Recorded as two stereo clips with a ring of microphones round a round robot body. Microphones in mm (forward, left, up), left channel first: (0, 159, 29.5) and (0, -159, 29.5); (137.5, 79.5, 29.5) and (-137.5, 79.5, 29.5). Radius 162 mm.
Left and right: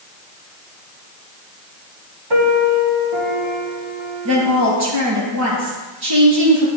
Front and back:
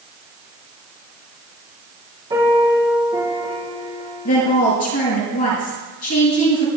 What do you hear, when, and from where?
2.3 s a piano: 100° right, 6.5 m
4.2 s a woman speaking: 50° right, 6.5 m